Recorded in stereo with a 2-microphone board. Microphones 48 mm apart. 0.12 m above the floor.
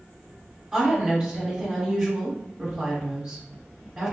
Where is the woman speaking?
10° right (ahead or behind), 1.5 m.